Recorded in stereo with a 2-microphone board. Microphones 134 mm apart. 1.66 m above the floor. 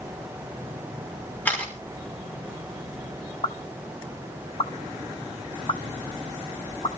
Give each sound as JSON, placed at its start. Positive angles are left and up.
{"t": 1.4, "sound": "a camera shutter", "side_deg": 15, "distance_m": 5.5}
{"t": 3.4, "sound": "a pop", "side_deg": 45, "distance_m": 1.0}